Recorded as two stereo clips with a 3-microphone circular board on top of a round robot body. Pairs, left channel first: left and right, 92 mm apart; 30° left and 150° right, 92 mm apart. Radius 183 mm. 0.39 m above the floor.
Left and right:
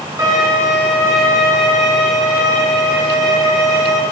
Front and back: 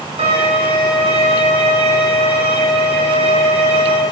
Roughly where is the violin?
Behind right.